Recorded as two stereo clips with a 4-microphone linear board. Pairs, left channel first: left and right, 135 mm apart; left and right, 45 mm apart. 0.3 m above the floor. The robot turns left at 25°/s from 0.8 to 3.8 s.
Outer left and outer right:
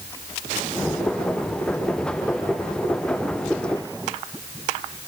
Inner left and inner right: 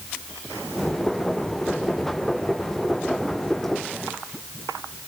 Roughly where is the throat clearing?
I don't hear throat clearing.